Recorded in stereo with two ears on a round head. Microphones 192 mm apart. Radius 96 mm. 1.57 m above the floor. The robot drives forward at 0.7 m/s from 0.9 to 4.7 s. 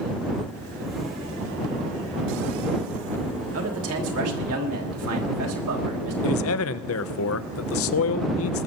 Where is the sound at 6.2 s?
70° left (ahead or behind), 0.7 m.